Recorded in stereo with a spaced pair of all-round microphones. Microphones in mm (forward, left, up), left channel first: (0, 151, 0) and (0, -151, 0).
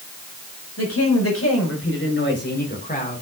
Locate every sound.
0.8 s a woman speaking: 55° left (ahead or behind), 5.5 m; by 3.2 s 25° left (ahead or behind), 4 m